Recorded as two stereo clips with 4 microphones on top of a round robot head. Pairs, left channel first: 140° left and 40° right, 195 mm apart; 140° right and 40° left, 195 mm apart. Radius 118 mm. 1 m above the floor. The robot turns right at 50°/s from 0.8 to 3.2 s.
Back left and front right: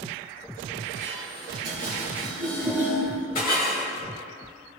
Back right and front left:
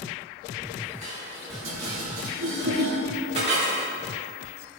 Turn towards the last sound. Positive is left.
turn(degrees=95)